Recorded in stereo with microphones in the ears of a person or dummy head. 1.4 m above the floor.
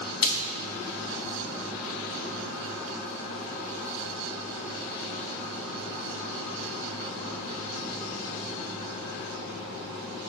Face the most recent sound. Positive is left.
turn(degrees=45)  # may be behind; listen again after turning